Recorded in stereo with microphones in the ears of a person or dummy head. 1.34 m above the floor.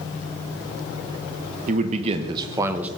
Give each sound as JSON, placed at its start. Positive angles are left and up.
{"t": 1.7, "sound": "a man speaking", "side_deg": -45, "distance_m": 1.1}